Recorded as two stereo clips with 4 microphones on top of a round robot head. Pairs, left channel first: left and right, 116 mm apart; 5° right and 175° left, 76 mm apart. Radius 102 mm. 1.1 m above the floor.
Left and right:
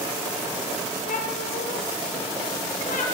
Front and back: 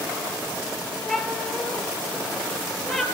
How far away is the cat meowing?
About 6 m.